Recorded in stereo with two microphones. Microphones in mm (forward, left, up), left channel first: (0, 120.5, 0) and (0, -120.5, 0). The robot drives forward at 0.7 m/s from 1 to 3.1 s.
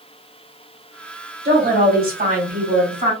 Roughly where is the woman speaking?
Right.